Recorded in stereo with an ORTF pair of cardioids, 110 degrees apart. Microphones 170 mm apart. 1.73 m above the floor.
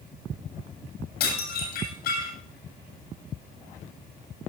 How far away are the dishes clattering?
About 8 m.